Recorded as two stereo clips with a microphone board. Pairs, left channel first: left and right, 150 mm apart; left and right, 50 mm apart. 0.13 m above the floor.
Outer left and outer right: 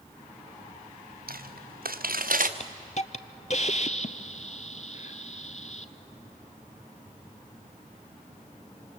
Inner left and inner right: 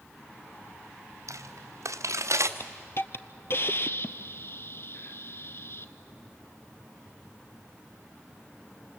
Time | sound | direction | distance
1.3 | footsteps | 85° right | 1.6 m
2.6 | a hiss | 50° left (ahead or behind) | 0.7 m